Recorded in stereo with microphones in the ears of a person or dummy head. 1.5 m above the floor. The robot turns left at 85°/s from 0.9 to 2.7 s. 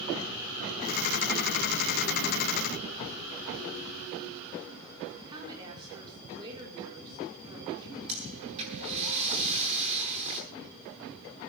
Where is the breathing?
35° right (ahead or behind), 9.5 m.